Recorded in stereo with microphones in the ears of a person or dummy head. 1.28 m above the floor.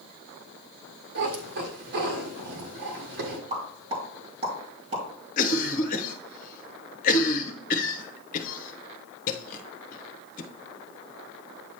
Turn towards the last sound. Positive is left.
turn(degrees=45)  # may be behind; listen again after turning